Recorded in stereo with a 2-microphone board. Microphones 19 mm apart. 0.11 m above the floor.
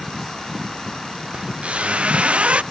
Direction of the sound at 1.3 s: 90° right.